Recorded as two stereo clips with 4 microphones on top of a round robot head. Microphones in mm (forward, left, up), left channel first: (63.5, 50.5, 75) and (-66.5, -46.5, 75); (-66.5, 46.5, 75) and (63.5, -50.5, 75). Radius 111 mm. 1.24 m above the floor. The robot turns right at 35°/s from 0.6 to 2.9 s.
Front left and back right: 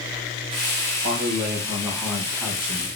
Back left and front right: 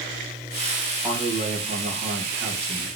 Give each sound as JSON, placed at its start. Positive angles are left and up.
{"t": 1.0, "sound": "a man speaking", "azimuth_deg": -110, "distance_m": 1.6}